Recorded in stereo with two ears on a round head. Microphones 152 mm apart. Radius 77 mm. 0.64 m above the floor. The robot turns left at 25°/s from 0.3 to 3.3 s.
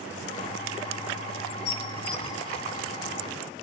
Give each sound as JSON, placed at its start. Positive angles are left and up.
{"t": 1.6, "sound": "dishes clattering", "side_deg": 55, "distance_m": 2.5}